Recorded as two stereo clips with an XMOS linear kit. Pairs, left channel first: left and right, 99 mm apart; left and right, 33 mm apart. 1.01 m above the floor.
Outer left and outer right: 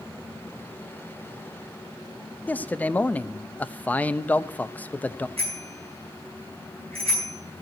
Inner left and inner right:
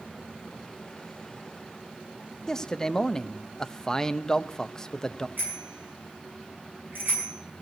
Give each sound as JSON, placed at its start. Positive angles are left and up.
{"t": 2.5, "sound": "a man speaking", "side_deg": 15, "distance_m": 0.6}
{"t": 5.4, "sound": "a bicycle bell", "side_deg": -75, "distance_m": 7.0}